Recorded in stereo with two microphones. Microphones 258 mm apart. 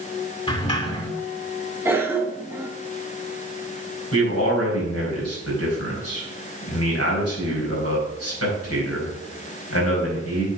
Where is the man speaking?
70° left (ahead or behind), 4 m.